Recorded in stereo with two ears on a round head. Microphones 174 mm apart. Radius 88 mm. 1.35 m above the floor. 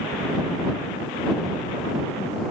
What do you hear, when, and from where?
Only background noise.